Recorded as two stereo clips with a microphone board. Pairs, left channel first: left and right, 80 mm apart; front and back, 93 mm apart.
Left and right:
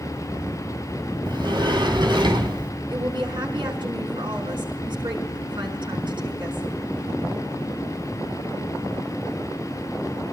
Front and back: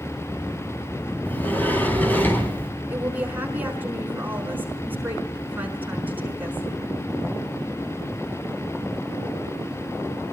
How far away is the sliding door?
About 4 m.